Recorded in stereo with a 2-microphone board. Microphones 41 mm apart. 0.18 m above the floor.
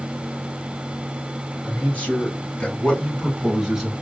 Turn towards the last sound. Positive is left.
turn(degrees=-10)  # may be behind; listen again after turning